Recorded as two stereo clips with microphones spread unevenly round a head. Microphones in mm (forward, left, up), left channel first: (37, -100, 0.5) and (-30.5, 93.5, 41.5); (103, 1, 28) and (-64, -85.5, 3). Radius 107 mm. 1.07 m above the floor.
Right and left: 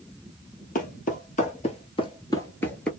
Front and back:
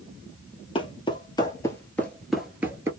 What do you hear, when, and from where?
0.8 s footsteps: 20° right, 1.5 m; by 2.9 s 150° left, 1.0 m